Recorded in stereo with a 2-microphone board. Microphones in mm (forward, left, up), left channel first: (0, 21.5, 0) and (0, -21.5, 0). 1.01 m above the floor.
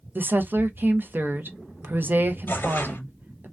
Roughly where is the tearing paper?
Left.